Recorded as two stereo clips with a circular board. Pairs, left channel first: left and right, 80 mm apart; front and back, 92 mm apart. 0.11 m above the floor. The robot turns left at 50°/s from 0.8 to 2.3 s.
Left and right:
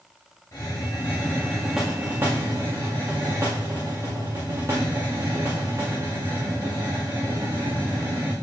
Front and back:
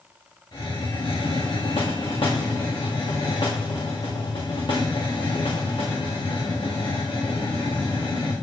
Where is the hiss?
40° left, 4 m; by 8.3 s 35° right, 4 m.